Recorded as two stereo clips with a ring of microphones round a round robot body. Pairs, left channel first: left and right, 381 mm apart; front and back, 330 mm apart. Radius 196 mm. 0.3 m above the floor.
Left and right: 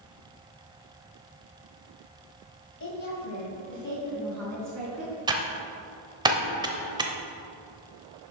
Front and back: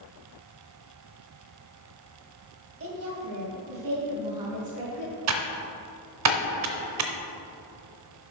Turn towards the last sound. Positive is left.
turn(degrees=-165)